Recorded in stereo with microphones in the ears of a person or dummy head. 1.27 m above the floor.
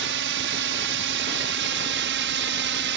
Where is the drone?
60° right (ahead or behind); by 3.0 s 55° right (ahead or behind).